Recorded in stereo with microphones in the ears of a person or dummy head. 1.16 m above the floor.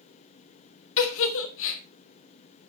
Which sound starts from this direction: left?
A giggle, at 1.0 s.